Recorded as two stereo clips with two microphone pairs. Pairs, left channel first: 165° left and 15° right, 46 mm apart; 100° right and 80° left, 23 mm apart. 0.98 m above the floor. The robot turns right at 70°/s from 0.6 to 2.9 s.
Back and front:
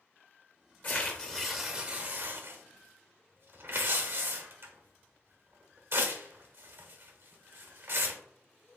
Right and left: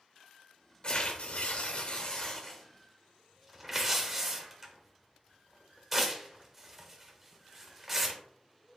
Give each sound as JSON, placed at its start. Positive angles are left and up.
{"t": 0.8, "sound": "tearing paper", "azimuth_deg": -150, "distance_m": 1.1}